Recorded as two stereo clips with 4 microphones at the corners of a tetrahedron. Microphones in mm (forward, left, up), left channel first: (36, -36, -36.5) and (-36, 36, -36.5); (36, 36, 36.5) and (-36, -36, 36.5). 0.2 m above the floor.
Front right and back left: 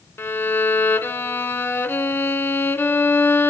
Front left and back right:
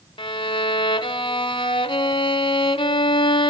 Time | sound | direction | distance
0.2 | a violin | 20° left | 0.6 m